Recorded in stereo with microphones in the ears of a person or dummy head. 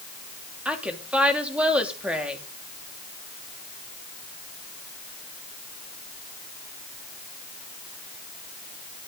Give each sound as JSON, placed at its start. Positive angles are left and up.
{"t": 0.7, "sound": "a woman speaking", "side_deg": -5, "distance_m": 3.0}